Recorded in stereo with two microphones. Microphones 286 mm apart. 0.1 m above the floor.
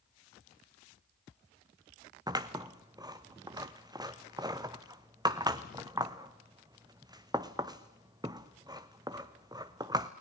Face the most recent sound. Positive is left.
turn(degrees=-15)  # may be behind; listen again after turning